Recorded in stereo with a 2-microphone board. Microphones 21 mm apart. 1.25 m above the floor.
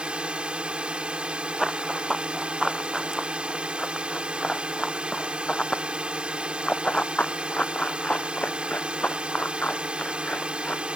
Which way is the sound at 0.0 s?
55° right (ahead or behind).